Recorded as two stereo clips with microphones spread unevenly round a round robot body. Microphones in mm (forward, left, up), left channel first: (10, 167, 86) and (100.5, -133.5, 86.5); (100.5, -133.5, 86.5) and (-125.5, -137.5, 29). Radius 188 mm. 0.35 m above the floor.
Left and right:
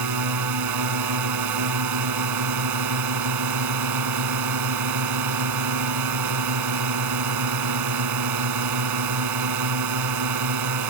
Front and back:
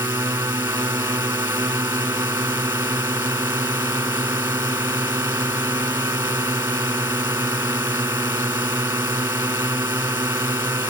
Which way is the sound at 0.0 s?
105° right.